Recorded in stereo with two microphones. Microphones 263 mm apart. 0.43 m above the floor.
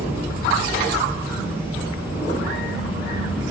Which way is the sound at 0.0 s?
10° right (ahead or behind).